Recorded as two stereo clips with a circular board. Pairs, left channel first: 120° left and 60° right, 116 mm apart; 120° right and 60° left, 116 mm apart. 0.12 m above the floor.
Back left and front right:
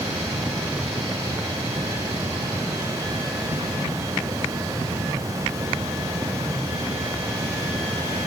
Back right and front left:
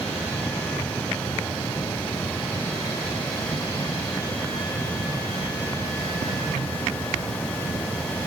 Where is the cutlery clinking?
I don't hear cutlery clinking.